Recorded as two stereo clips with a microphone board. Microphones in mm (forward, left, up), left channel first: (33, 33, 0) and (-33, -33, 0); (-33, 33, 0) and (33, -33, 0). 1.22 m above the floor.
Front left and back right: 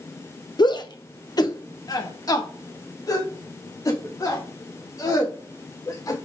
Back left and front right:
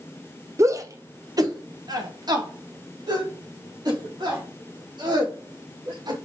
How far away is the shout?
About 0.8 m.